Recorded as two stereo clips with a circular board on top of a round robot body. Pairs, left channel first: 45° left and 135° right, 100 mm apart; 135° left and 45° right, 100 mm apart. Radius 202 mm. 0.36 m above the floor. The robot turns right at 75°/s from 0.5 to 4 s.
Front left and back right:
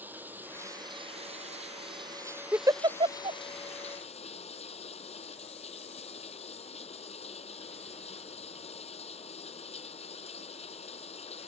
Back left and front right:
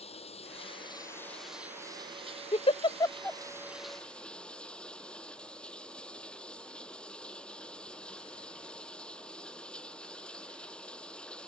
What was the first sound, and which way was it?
Running water, 150° left.